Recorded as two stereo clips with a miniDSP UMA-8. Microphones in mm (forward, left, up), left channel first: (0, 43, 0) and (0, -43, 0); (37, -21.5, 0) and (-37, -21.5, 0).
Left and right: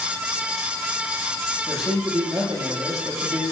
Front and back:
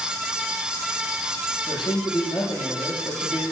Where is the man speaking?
5° right, 7.5 m.